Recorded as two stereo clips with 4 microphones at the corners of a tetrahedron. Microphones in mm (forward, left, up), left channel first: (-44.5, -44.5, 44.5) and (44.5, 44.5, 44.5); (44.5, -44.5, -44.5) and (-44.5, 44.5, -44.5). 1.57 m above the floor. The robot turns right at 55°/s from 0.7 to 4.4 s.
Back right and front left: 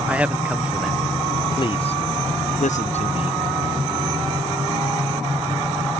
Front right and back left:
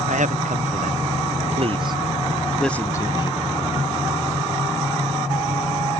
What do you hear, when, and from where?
0.1 s a man speaking: 125° left; by 3.4 s 90° right